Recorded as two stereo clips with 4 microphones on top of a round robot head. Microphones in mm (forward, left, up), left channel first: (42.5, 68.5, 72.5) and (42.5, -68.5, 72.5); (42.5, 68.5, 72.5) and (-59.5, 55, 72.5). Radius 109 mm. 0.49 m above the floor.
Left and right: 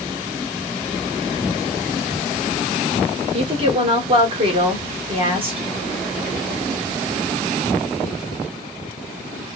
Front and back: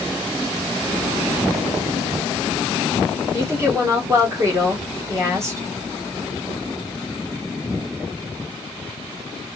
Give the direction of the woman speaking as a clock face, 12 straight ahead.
4 o'clock.